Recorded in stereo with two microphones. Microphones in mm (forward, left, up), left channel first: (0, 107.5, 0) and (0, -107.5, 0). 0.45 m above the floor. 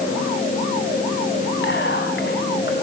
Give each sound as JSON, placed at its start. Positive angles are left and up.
{"t": 1.6, "sound": "whispering", "side_deg": 60, "distance_m": 3.0}